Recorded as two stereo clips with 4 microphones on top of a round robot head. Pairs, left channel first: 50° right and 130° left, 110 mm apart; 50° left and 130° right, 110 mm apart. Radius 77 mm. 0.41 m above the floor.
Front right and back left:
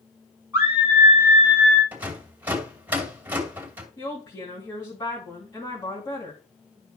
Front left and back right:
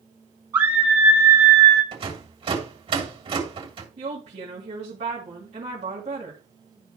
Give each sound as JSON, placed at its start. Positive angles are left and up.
{"t": 0.5, "sound": "a scream", "azimuth_deg": -170, "distance_m": 1.6}
{"t": 1.9, "sound": "a rattle", "azimuth_deg": -155, "distance_m": 2.5}
{"t": 4.0, "sound": "a woman speaking", "azimuth_deg": -110, "distance_m": 4.0}